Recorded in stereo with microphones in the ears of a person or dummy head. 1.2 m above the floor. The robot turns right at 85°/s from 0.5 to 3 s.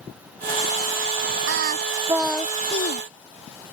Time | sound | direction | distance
1.5 | singing | 70° right | ?